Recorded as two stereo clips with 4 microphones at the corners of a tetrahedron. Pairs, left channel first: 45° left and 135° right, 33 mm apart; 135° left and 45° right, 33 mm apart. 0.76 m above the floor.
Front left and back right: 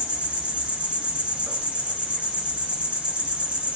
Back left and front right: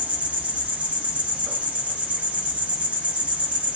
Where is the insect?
85° right, 0.9 m.